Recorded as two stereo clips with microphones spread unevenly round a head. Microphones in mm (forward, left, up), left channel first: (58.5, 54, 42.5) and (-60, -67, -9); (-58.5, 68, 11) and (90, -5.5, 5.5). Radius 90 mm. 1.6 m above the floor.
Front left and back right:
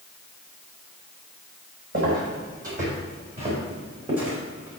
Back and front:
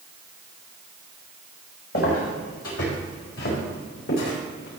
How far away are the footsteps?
About 4.5 m.